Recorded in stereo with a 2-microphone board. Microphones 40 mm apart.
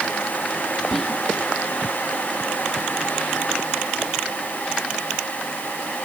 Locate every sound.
0.9 s whispering: 5° left (ahead or behind)